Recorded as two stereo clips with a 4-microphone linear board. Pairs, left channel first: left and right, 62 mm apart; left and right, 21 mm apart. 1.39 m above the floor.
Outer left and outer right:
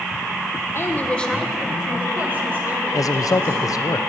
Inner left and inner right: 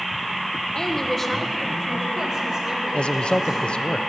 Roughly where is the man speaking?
Left.